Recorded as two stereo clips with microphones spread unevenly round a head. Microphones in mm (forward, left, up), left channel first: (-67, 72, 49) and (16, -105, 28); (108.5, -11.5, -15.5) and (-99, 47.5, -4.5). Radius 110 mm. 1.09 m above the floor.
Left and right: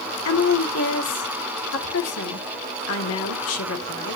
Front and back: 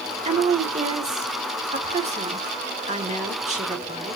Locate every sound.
0.2 s a woman speaking: 105° left, 2 m